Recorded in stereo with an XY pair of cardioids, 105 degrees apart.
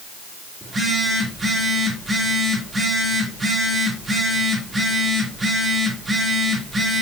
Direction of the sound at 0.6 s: 20° right.